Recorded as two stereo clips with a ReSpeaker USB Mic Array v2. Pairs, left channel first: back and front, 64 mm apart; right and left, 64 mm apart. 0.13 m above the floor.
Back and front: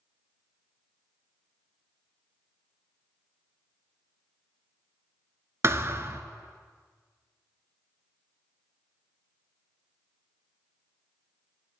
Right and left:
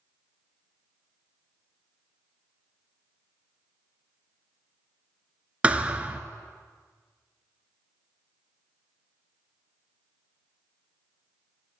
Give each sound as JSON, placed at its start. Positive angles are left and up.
{"t": 5.6, "sound": "a thud", "azimuth_deg": 25, "distance_m": 0.6}